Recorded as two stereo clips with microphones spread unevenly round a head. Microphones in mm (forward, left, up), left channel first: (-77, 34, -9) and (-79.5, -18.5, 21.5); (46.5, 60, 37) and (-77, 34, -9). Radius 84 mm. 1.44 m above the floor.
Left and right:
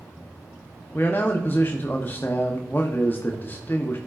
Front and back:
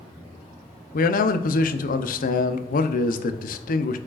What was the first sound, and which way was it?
A man speaking, 25° left.